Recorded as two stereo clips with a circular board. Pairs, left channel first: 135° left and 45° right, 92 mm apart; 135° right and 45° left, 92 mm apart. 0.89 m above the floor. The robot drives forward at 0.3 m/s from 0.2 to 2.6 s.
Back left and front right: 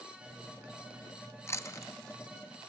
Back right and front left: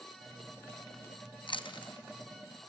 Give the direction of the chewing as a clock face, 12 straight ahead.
5 o'clock.